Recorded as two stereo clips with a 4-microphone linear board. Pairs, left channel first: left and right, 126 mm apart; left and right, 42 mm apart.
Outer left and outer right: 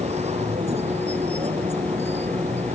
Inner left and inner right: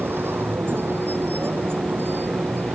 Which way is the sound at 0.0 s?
60° right (ahead or behind).